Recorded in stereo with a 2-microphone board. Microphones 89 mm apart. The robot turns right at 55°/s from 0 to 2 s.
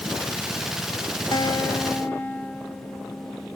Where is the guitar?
115° left, 1.8 m; by 3.6 s 155° left, 1.8 m.